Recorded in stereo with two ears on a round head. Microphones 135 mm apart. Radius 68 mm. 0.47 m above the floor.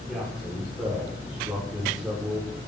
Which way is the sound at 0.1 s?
5° right (ahead or behind).